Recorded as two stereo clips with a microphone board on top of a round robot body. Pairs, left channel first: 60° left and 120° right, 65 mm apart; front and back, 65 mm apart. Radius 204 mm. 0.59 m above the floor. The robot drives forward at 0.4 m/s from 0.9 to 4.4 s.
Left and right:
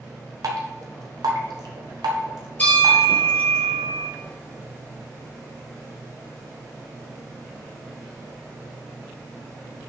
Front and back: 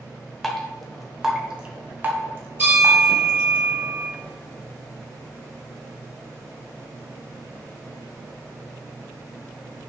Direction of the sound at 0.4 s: 90° right.